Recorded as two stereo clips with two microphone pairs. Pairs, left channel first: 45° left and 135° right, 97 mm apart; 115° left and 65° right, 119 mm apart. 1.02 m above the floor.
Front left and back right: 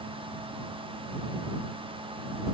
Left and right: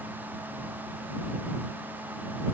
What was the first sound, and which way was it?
Only background noise.